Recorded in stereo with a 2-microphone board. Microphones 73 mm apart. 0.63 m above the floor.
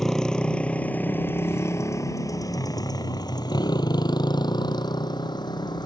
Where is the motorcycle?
5° left (ahead or behind); by 5.9 s 85° left.